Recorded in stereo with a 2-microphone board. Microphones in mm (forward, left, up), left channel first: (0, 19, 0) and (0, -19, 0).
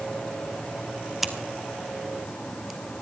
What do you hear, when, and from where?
1.2 s scissors: 5° right (ahead or behind), 1.2 m